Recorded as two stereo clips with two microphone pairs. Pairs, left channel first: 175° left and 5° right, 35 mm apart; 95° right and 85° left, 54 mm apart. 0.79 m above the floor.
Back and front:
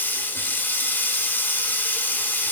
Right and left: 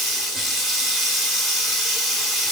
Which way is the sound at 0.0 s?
170° left.